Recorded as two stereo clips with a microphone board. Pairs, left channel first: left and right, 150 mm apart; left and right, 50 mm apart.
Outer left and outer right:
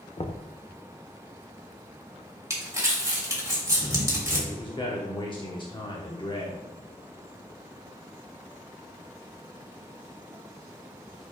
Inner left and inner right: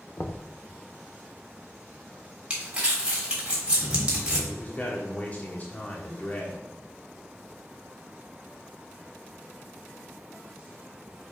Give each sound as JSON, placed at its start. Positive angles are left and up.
{"t": 0.2, "sound": "knocking", "side_deg": 45, "distance_m": 0.6}
{"t": 2.5, "sound": "crumpling", "side_deg": -20, "distance_m": 3.0}
{"t": 4.5, "sound": "a man speaking", "side_deg": 35, "distance_m": 1.0}